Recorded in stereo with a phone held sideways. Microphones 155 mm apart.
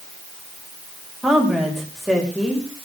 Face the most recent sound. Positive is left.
turn(degrees=0)  # may be behind; listen again after turning